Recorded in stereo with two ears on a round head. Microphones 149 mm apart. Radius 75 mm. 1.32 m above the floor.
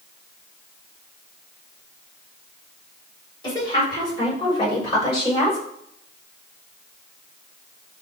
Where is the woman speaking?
30° left (ahead or behind), 5 m; by 5.6 s 25° left (ahead or behind), 8 m.